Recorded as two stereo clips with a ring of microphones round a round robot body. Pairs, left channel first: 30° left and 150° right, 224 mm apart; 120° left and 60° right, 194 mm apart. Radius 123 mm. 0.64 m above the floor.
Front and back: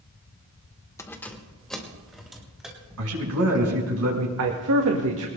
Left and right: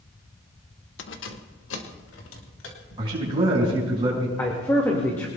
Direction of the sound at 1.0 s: 110° left.